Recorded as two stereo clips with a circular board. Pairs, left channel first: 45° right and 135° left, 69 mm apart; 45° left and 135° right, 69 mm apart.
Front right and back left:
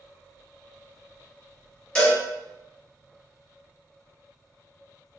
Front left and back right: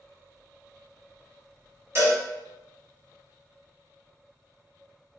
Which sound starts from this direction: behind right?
A cowbell, at 1.9 s.